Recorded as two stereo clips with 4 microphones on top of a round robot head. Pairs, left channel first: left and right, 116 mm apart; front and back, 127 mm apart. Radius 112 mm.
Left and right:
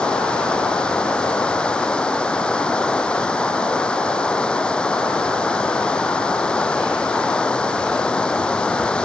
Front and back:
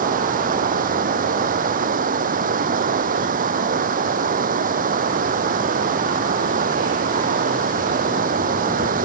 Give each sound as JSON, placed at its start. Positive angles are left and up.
{"t": 0.0, "sound": "running water", "azimuth_deg": 170}